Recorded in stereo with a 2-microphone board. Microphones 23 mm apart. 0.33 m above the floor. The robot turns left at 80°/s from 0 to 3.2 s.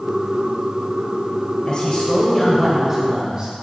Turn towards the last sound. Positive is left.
turn(degrees=-45)